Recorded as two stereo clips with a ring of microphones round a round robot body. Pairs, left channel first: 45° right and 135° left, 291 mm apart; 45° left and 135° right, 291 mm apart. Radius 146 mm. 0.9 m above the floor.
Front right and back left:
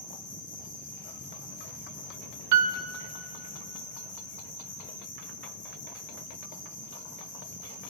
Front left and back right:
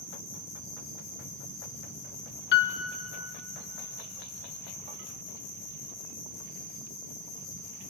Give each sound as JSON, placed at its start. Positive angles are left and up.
{"t": 0.0, "sound": "an insect", "azimuth_deg": 20, "distance_m": 6.0}
{"t": 2.5, "sound": "a piano", "azimuth_deg": 100, "distance_m": 1.2}